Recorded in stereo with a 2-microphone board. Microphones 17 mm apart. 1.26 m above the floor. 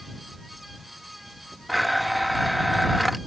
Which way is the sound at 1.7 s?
Centre (ahead or behind).